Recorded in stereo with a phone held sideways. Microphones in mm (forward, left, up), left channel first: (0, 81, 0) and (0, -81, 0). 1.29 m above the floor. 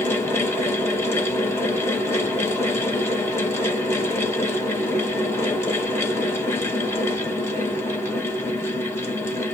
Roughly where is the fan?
Centre.